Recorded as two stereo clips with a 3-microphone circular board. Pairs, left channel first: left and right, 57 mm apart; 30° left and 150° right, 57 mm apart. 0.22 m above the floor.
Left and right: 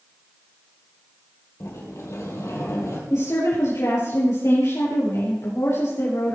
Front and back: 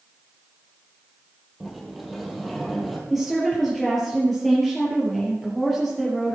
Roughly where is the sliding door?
Behind left.